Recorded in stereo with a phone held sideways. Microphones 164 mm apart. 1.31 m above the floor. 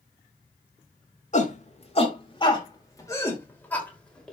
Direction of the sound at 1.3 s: 50° left (ahead or behind).